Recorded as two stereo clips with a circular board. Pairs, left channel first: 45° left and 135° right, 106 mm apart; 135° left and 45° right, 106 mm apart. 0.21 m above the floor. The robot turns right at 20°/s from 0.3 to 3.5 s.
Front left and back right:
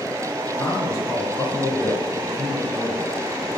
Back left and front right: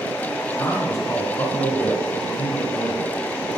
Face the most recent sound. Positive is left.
turn(degrees=145)